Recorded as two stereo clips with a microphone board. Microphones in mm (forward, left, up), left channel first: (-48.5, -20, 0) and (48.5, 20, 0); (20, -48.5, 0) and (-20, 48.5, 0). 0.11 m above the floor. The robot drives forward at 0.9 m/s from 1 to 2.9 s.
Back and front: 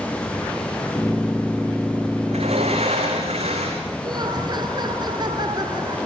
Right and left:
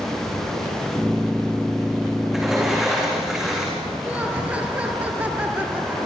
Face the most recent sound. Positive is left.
turn(degrees=40)